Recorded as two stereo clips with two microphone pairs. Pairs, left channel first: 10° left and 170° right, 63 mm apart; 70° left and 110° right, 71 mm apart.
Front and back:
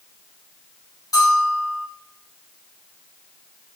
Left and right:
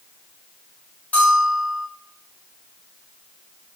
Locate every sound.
1.1 s a bell: 5° left, 3 m